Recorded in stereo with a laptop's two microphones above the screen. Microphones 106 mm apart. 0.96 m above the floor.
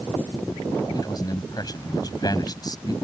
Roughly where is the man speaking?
Left.